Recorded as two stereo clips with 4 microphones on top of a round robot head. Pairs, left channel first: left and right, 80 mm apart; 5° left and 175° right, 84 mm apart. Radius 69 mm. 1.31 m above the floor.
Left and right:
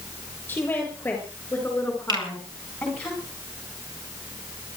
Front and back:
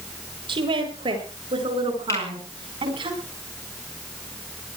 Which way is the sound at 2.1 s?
60° right.